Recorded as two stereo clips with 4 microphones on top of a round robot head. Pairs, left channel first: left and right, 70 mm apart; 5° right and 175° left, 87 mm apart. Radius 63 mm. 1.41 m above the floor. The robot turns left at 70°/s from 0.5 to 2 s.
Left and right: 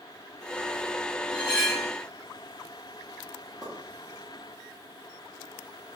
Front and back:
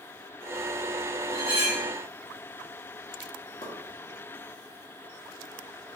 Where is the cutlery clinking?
Straight behind, 0.6 m; by 1.9 s 140° left, 0.6 m.